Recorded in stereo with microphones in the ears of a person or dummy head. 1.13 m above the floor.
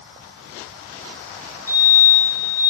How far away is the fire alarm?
About 7.5 m.